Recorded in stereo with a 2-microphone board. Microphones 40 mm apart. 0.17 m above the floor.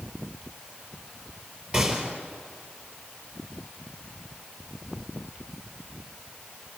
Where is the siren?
No siren in this recording.